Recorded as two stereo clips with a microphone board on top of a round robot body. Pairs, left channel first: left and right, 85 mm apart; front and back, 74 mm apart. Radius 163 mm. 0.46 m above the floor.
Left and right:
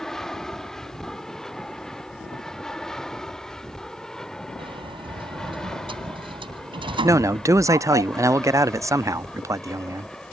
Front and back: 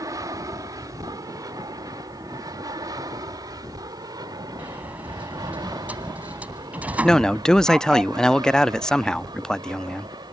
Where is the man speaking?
75° right.